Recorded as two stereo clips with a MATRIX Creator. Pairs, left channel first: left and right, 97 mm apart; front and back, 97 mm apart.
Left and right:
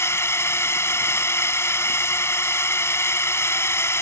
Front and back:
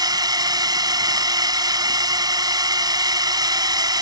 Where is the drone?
145° left.